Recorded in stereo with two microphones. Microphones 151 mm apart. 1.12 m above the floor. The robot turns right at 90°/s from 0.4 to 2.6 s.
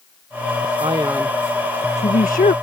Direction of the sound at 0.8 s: 50° right.